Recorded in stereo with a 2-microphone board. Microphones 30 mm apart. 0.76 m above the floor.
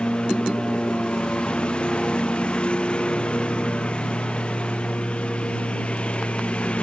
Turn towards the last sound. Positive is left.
turn(degrees=35)  # may be behind; listen again after turning